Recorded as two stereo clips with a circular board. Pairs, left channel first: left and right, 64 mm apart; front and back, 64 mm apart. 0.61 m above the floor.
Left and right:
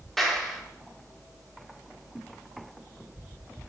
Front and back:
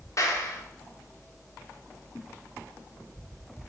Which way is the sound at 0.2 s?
5° left.